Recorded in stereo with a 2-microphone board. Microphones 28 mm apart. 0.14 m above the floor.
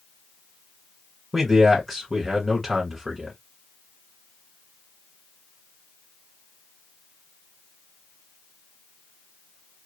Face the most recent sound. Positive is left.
turn(degrees=0)  # may be behind; listen again after turning